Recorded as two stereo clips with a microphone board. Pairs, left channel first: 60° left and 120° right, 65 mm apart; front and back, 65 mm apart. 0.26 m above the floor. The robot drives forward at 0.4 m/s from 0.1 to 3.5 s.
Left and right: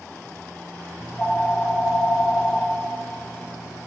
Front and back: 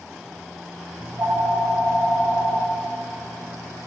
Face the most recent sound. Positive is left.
turn(degrees=170)